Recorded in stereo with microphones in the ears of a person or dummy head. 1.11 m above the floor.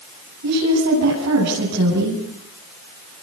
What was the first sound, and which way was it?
A woman speaking, 75° right (ahead or behind).